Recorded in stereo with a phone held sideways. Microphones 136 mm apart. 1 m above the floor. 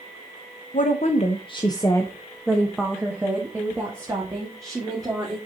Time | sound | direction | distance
0.7 | a woman speaking | 60° left (ahead or behind) | 0.9 m